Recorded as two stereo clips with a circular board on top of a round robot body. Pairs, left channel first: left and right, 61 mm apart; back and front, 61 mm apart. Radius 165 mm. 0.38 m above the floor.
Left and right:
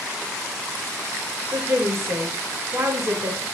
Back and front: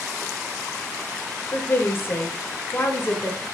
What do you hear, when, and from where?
1.5 s a woman speaking: 130° right, 1.7 m